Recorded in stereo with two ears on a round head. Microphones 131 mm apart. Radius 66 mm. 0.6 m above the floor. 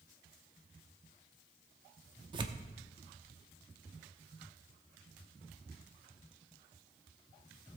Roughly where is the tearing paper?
Right.